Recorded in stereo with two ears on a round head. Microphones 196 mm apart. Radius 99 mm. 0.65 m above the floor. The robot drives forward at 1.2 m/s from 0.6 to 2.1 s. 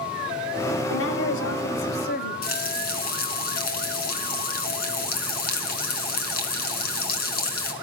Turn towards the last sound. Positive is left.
turn(degrees=50)  # may be behind; listen again after turning